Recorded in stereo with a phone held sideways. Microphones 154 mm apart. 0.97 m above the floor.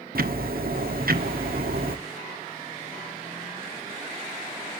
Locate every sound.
0.1 s ticking: 75° right (ahead or behind), 1.2 m